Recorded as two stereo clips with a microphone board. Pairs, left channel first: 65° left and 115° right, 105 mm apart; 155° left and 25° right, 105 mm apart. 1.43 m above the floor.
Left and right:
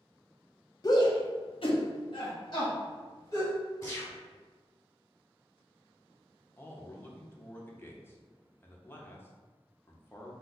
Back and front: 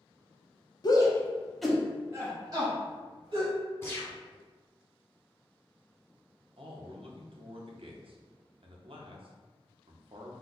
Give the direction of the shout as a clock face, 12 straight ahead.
8 o'clock.